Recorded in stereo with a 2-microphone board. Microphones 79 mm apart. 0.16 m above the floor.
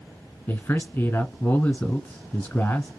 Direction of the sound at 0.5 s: 25° left (ahead or behind).